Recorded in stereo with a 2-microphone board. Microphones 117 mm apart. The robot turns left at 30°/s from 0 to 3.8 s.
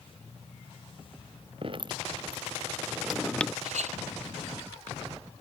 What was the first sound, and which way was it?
Dripping, 45° right (ahead or behind).